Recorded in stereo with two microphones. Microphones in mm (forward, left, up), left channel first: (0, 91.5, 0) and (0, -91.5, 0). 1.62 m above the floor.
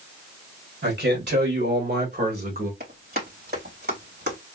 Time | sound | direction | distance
0.8 | a man speaking | 85° right | 1.9 m
2.8 | running footsteps | 55° right (ahead or behind) | 3.5 m